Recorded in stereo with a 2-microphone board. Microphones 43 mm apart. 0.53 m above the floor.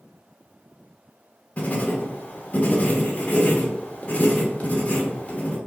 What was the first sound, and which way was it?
Writing, 35° left (ahead or behind).